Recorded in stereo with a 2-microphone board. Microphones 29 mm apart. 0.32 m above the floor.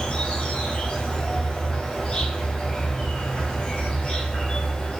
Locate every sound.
0.0 s an insect: 40° left (ahead or behind), 0.8 m